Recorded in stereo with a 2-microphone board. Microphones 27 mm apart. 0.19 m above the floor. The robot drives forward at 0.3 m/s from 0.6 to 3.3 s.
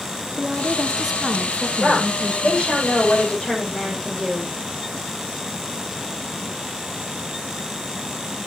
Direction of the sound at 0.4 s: 15° right (ahead or behind).